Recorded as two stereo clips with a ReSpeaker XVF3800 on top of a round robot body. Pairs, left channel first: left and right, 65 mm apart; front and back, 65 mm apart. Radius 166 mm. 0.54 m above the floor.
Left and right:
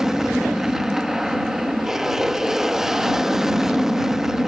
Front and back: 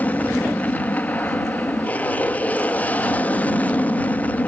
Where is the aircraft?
15° right.